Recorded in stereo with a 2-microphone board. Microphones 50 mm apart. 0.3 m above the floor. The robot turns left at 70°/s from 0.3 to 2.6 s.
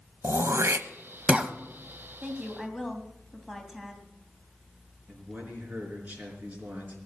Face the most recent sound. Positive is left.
turn(degrees=-35)  # may be behind; listen again after turning